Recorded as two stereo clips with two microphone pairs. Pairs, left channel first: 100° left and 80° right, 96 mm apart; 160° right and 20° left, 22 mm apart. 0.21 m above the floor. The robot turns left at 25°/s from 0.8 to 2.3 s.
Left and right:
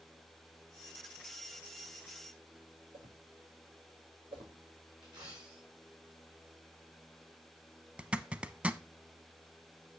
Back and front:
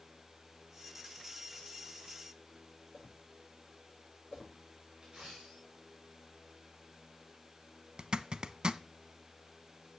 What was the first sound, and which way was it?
A whoosh, 95° right.